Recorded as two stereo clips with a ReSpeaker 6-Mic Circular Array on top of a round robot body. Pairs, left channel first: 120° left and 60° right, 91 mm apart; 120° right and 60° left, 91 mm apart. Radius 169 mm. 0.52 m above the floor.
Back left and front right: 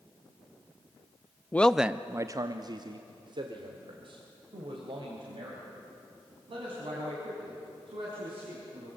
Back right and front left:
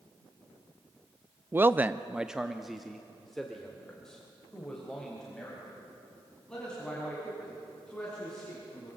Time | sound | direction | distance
1.5 | a man speaking | 80° left | 0.8 m